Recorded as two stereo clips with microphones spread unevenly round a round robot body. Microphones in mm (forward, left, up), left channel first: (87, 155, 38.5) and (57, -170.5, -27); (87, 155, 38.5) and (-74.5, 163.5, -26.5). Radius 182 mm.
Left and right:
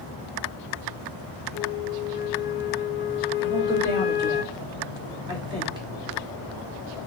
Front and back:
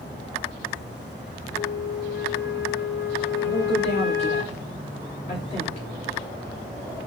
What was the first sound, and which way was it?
A flute, 25° left.